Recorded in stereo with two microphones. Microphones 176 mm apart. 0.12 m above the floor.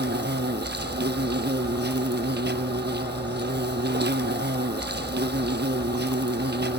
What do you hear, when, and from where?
0.0 s an insect: 75° right (ahead or behind), 1.0 m